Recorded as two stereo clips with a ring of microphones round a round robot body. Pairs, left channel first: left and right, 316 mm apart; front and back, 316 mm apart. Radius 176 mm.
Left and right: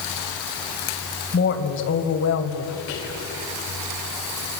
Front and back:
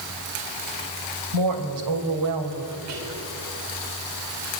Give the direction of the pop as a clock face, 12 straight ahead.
No pop in this recording.